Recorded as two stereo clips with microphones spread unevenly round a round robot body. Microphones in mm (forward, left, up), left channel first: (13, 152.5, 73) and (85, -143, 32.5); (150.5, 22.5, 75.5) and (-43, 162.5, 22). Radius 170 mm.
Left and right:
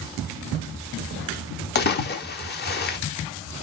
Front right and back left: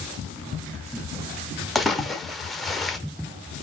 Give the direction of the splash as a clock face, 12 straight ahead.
9 o'clock.